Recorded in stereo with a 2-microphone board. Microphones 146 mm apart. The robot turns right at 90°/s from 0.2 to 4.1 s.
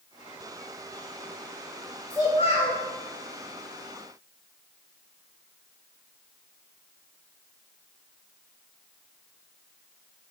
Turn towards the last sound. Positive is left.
turn(degrees=-170)